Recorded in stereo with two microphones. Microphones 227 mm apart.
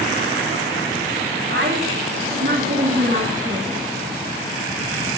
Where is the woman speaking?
55° right (ahead or behind), 2.5 m; by 3.8 s 30° right (ahead or behind), 1.7 m.